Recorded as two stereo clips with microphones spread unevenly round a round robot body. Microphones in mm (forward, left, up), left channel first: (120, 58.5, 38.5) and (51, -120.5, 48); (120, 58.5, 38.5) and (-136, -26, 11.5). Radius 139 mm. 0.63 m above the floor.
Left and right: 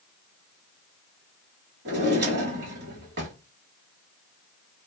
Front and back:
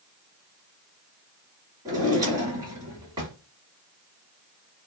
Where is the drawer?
85° right, 1.2 m.